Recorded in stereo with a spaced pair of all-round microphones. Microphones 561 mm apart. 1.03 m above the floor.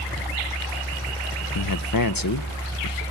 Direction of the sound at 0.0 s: 5° left (ahead or behind).